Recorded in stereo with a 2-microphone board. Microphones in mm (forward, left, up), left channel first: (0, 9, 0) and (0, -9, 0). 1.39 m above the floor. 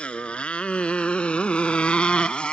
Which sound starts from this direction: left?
A motorcycle, at 0.0 s.